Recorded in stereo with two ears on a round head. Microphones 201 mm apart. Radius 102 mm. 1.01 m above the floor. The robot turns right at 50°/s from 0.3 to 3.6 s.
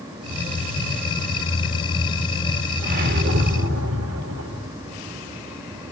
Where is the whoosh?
145° right, 2 m; by 4.7 s 105° right, 2 m.